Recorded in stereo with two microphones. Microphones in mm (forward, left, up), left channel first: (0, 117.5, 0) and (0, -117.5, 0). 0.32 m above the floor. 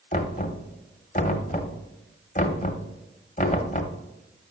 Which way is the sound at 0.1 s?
30° left (ahead or behind).